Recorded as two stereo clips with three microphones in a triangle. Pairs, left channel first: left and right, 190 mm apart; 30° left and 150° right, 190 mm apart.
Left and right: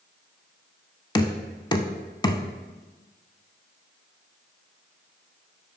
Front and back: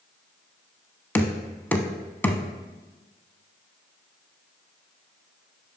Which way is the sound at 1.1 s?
95° left.